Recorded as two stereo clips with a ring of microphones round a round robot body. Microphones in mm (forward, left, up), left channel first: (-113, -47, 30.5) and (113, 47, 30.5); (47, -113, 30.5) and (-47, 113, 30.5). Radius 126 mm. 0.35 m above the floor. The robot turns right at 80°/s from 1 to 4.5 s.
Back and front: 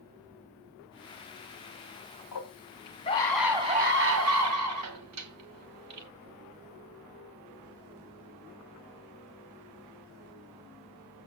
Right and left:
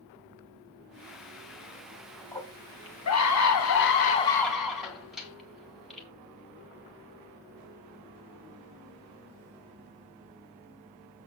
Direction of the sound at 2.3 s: 150° right.